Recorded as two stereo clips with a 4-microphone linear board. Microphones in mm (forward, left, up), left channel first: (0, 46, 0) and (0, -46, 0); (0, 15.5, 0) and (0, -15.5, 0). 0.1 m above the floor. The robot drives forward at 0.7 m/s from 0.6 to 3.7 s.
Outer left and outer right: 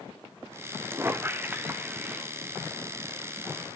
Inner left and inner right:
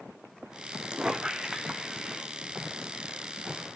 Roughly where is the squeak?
Right.